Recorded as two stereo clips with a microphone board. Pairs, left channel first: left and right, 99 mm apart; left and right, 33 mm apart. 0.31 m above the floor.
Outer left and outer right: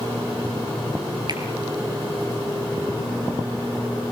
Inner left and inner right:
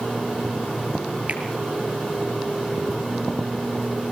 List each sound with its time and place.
1.3 s a finger snap: 45° right (ahead or behind), 4.5 m